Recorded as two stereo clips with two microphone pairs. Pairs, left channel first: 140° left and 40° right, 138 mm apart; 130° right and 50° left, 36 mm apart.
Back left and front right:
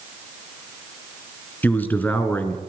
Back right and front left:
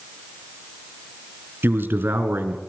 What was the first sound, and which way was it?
A man speaking, 65° left.